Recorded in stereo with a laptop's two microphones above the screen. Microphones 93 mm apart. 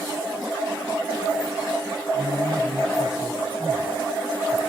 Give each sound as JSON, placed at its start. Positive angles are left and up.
{"t": 2.1, "sound": "a man speaking", "side_deg": 25, "distance_m": 9.0}